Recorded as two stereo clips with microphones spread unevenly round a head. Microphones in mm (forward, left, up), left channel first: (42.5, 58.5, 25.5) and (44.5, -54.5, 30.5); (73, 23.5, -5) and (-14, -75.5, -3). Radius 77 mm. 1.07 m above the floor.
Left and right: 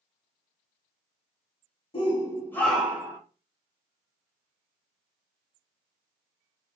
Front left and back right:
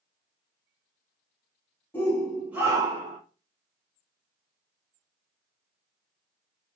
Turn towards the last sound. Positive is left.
turn(degrees=-135)